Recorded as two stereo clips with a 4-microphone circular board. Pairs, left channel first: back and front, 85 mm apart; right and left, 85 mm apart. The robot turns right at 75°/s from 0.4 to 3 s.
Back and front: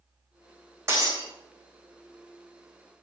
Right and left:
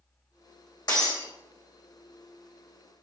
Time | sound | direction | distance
0.9 | breaking glass | 55° right | 4 m